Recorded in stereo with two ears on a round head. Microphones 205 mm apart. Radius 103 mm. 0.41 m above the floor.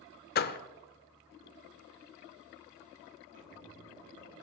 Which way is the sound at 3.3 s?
40° right (ahead or behind).